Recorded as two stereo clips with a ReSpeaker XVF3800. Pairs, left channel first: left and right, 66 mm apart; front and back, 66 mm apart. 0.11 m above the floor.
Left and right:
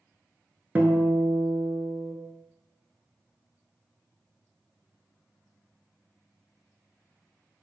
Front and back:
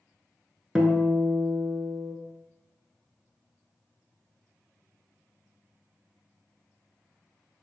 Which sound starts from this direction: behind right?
A guitar, at 0.8 s.